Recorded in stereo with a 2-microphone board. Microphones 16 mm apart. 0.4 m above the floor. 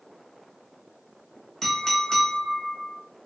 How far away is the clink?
About 1.1 m.